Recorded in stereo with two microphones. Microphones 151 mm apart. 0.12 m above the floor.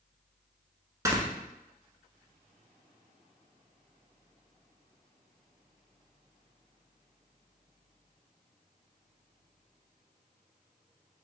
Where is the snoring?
20° right (ahead or behind), 1.1 m.